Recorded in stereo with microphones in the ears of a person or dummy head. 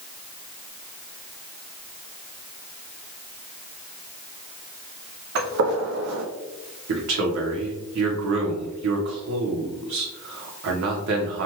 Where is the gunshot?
70° right (ahead or behind), 1.0 m.